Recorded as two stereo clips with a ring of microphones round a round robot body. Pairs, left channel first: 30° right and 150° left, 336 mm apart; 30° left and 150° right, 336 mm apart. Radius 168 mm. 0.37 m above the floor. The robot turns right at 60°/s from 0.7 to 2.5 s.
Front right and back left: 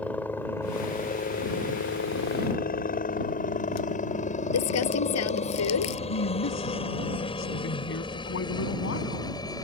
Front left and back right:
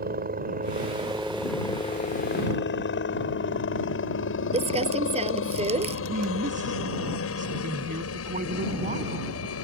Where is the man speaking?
85° right.